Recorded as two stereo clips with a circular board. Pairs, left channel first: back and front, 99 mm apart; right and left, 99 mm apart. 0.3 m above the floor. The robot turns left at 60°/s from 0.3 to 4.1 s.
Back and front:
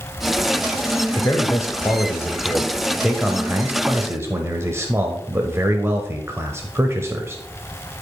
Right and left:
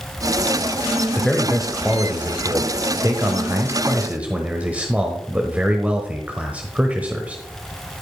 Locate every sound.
1.1 s a man speaking: 155° right, 0.9 m; by 7.4 s 30° left, 0.9 m